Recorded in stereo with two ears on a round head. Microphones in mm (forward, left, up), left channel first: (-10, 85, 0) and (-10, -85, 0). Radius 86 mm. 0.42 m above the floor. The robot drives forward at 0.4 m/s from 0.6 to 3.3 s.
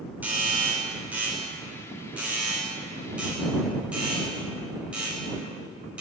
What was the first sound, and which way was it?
A doorbell, 10° right (ahead or behind).